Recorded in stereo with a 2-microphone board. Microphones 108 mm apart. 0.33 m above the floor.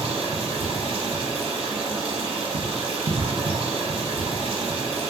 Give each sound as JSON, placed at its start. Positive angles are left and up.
{"t": 0.0, "sound": "running water", "side_deg": -65, "distance_m": 0.7}